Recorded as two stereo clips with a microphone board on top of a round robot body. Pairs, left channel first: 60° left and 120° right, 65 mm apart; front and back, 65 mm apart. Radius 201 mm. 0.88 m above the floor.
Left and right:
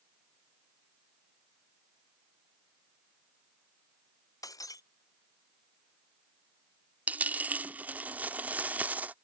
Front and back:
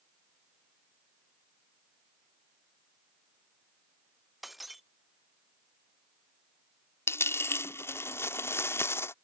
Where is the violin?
I don't hear a violin.